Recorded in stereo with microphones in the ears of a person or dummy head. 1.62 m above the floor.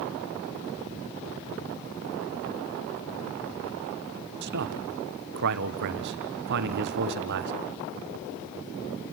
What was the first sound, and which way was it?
A man speaking, 60° right (ahead or behind).